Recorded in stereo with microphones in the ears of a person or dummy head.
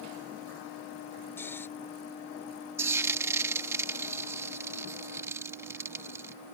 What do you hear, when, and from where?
1.4 s snoring: 10° left (ahead or behind)
2.8 s frying: 15° right (ahead or behind)